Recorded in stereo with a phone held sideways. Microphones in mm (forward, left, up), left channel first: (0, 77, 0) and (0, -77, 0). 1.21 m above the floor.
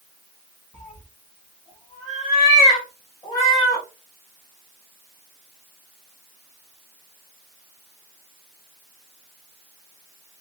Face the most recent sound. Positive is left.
turn(degrees=25)  # may be behind; listen again after turning